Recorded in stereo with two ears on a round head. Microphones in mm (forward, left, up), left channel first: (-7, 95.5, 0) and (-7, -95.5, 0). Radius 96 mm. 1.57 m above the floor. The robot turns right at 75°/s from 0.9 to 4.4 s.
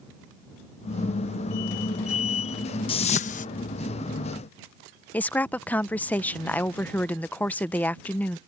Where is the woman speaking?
10° left (ahead or behind).